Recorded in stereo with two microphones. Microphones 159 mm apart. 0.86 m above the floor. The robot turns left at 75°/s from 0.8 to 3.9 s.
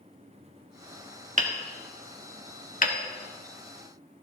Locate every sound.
1.4 s hammering: 50° right (ahead or behind), 1.6 m; by 3.0 s 65° left (ahead or behind), 1.6 m